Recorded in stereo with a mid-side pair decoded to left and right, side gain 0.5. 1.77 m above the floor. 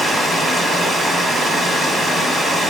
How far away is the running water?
About 3 m.